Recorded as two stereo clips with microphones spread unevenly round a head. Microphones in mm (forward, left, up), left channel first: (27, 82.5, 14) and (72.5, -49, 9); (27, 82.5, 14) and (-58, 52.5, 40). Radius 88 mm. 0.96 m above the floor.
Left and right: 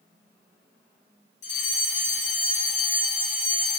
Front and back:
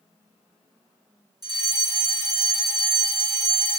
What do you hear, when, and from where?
1.4 s a fire alarm: 150° left, 4 m